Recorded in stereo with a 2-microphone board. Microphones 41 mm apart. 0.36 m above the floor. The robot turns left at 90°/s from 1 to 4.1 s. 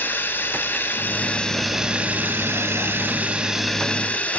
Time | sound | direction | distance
0.0 | running water | 60° left | 1.0 m